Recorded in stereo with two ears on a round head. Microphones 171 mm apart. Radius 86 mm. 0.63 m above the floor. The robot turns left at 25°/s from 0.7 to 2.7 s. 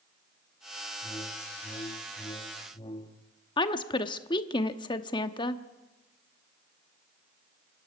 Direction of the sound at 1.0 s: 15° left (ahead or behind).